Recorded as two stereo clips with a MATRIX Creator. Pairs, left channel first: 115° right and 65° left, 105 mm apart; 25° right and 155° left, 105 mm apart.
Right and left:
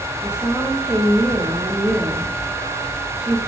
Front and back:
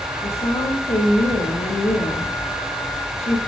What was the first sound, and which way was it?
A woman speaking, 15° right.